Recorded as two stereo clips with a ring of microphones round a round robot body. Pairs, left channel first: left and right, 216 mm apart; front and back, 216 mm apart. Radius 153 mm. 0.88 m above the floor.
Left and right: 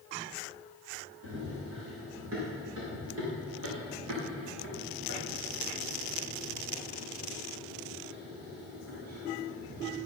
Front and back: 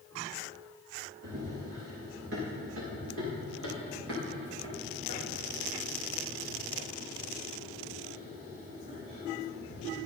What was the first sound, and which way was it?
Running footsteps, 140° right.